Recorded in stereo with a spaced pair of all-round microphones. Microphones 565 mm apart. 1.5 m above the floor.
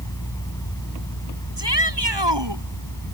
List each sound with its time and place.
0.0 s a fan: 5° left (ahead or behind)
1.6 s a shout: 45° right (ahead or behind)